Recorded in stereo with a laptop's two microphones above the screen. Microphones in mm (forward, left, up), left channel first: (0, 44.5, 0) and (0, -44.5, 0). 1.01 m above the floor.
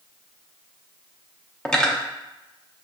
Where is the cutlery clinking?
10° left (ahead or behind), 0.6 m.